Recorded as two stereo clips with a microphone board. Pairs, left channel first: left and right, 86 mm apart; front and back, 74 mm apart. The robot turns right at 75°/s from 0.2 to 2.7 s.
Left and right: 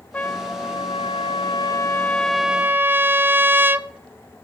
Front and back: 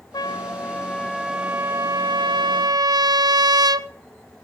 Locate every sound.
0.1 s a trumpet: 20° left, 0.6 m; by 3.9 s 155° right, 0.6 m